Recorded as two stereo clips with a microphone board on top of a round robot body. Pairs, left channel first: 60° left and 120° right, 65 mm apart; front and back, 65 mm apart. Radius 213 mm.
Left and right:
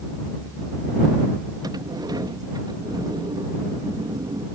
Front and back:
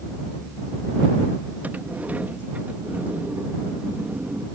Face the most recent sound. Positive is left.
turn(degrees=-115)